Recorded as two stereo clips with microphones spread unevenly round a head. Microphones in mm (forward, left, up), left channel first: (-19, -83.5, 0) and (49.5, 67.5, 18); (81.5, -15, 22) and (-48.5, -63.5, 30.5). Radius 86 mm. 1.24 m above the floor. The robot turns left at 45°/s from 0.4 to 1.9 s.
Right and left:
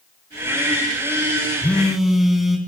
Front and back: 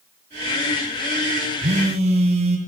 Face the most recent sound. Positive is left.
turn(degrees=150)